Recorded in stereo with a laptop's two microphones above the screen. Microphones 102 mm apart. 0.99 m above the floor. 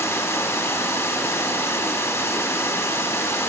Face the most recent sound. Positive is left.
turn(degrees=30)  # may be behind; listen again after turning